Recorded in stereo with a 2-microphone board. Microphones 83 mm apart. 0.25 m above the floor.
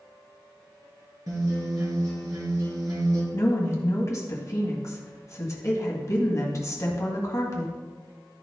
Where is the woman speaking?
40° left (ahead or behind), 1.8 m.